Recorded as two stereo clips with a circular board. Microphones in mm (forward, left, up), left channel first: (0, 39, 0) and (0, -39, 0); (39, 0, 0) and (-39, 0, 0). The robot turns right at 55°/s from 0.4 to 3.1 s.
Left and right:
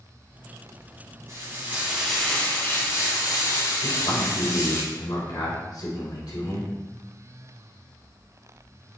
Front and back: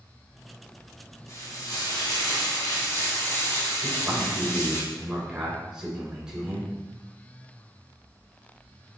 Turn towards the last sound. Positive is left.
turn(degrees=100)